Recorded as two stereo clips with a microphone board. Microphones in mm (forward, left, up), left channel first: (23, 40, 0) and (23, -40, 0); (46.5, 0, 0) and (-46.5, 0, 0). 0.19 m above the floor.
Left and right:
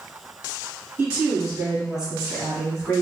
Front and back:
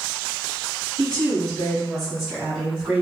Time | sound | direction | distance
1.0 | a woman speaking | 60° right | 1.5 m